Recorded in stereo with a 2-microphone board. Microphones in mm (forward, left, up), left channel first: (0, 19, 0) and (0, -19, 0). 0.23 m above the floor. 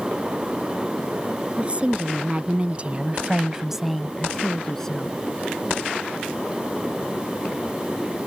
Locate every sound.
1.6 s a woman speaking: 30° right (ahead or behind); by 5.2 s 15° left (ahead or behind)